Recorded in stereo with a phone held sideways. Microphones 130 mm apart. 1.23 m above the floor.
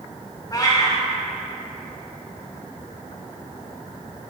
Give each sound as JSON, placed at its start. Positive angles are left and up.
{"t": 0.5, "sound": "a cat meowing", "side_deg": 30, "distance_m": 1.0}